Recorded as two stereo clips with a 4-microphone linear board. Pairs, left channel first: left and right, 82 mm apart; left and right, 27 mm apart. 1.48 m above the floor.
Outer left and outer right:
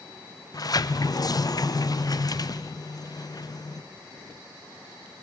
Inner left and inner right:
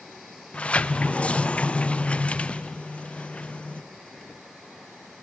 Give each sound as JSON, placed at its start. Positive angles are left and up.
{"t": 0.5, "sound": "a sliding door", "side_deg": 50, "distance_m": 0.5}